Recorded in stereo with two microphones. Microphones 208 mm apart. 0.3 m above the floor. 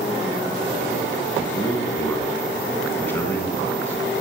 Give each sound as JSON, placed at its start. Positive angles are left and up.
{"t": 1.4, "sound": "a man speaking", "side_deg": 10, "distance_m": 2.0}